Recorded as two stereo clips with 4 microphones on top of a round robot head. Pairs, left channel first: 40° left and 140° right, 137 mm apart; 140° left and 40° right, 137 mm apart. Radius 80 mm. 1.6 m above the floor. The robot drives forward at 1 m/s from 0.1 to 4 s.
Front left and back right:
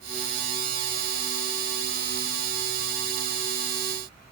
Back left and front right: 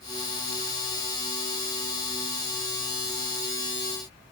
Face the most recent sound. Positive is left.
No sound to turn to.